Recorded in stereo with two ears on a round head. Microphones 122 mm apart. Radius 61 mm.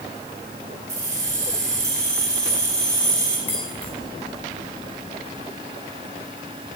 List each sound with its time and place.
0.9 s keys jangling: 25° right (ahead or behind), 5.5 m
3.5 s keys jangling: 15° left (ahead or behind), 4 m